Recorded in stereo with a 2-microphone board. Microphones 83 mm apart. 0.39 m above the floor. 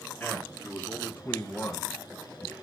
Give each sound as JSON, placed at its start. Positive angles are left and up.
{"t": 0.2, "sound": "a man speaking", "side_deg": 15, "distance_m": 5.5}